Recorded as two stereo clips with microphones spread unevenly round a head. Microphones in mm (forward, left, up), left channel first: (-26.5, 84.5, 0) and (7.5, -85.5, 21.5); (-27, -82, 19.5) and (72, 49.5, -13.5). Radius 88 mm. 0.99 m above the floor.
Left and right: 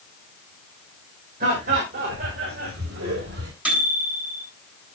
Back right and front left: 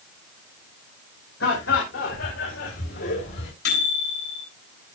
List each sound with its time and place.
1.4 s laughter: 125° right, 4.5 m; by 3.5 s 105° right, 3 m
3.6 s a microwave: 160° right, 8.5 m